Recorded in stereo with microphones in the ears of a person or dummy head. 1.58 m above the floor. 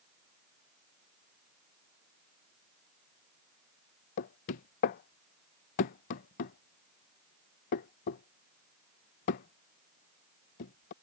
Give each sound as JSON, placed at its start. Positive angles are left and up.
{"t": 4.2, "sound": "knocking", "side_deg": 30}